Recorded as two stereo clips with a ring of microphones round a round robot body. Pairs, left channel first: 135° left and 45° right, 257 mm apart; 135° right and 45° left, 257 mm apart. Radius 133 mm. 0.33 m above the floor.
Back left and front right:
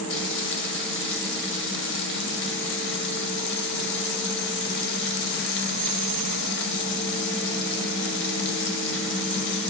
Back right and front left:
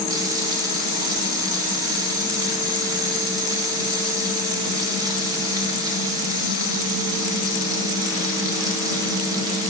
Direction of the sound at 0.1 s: 115° left.